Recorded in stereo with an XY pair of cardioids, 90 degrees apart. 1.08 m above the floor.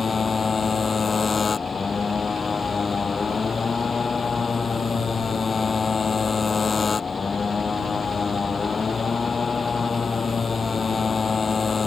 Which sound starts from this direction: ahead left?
A motorcycle, at 0.0 s.